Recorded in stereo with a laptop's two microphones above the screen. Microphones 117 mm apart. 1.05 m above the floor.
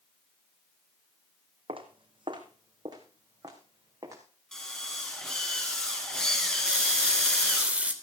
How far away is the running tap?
About 3 m.